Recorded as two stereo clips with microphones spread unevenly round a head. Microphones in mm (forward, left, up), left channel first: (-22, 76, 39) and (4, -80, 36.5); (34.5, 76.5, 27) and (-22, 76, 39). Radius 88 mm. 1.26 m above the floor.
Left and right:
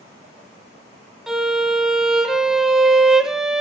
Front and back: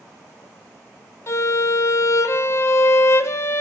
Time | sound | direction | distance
1.3 | a violin | 5° left | 1.1 m